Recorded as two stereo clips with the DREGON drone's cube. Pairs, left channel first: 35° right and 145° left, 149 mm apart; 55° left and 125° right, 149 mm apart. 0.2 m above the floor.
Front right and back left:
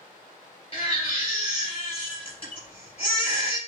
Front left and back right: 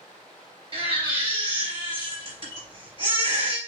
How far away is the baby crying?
About 2.5 m.